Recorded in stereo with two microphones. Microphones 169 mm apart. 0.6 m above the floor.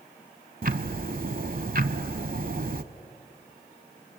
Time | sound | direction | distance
0.6 | ticking | 60° right (ahead or behind) | 0.7 m